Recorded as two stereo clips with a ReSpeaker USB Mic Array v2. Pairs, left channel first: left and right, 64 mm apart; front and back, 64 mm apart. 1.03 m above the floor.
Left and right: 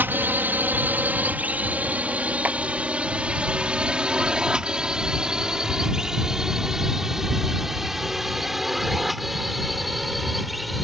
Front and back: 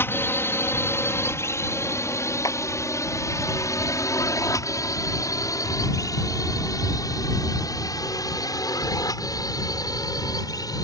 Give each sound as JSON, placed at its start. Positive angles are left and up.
{"t": 0.0, "sound": "a drone", "azimuth_deg": -40}
{"t": 2.4, "sound": "a clap", "azimuth_deg": -25}